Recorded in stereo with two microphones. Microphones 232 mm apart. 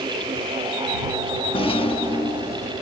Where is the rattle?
25° left (ahead or behind).